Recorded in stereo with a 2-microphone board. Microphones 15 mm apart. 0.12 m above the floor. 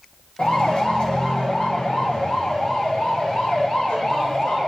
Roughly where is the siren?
Left.